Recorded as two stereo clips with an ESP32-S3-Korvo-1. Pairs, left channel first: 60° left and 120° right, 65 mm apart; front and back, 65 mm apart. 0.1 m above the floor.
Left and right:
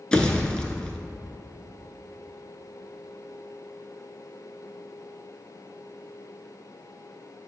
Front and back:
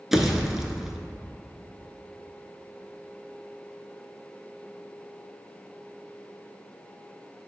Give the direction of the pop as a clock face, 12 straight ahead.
8 o'clock.